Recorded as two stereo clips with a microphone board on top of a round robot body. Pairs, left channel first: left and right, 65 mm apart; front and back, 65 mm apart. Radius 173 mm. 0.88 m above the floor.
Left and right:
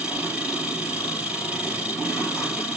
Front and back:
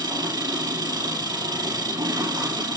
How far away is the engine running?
About 5 m.